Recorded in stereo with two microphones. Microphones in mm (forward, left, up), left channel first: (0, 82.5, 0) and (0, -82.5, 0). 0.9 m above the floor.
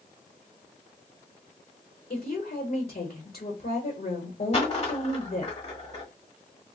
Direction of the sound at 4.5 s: 40° left (ahead or behind).